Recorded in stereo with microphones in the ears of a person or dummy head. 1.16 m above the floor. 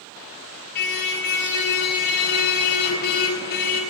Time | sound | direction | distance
0.8 | a car horn | 60° left (ahead or behind) | 6 m